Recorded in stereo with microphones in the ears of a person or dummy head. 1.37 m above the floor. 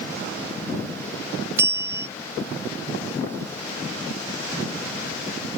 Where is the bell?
15° right (ahead or behind).